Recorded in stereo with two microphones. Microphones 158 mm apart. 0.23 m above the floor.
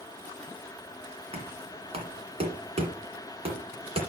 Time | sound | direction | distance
1.3 | knocking | 40° right (ahead or behind) | 2 m